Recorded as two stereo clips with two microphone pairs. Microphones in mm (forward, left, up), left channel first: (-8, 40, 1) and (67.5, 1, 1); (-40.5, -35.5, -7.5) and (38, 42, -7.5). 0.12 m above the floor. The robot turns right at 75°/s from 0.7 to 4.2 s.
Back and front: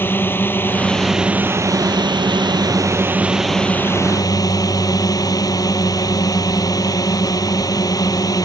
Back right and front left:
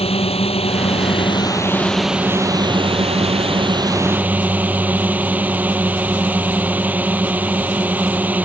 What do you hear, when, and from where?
0.0 s a drone: 145° right; by 8.4 s 120° left